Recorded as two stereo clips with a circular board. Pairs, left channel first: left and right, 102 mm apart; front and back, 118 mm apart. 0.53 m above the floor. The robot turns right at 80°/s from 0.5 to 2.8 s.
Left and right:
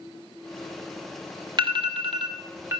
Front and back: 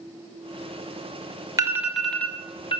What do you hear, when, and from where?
1.6 s an alarm: 125° right, 2 m; by 2.8 s 25° right, 2 m